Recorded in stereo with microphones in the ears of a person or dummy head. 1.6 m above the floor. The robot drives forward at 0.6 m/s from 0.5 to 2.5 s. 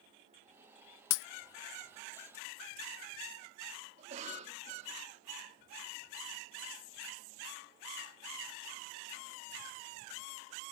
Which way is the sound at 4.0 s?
45° right (ahead or behind).